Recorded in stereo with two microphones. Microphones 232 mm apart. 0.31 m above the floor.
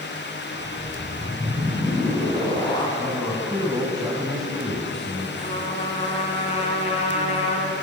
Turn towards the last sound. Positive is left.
turn(degrees=30)  # may be behind; listen again after turning